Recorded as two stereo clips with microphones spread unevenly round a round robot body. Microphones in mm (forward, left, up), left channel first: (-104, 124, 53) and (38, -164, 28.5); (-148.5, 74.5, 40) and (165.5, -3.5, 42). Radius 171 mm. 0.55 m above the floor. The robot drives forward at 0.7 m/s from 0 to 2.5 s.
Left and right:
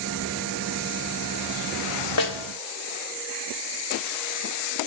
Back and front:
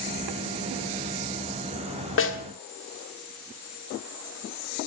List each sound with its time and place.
2.2 s a snare drum: 120° left, 1.6 m; by 2.4 s 125° left, 1.6 m